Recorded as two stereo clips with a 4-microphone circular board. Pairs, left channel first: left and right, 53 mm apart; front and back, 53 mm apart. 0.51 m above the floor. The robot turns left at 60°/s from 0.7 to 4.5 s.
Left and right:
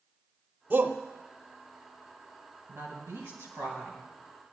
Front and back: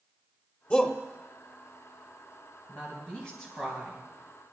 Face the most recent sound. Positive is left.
turn(degrees=-150)